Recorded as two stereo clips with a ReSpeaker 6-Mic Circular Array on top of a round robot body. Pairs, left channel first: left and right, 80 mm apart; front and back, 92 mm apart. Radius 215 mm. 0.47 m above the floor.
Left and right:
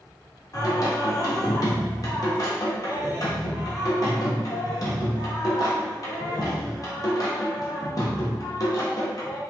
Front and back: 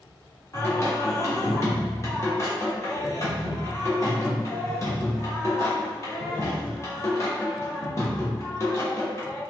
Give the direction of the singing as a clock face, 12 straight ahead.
10 o'clock.